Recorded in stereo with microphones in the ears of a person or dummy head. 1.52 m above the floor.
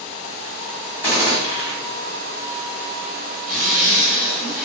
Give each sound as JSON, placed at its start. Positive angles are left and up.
{"t": 1.0, "sound": "a gunshot", "side_deg": 10, "distance_m": 1.6}
{"t": 3.5, "sound": "a zipper", "side_deg": 0, "distance_m": 1.6}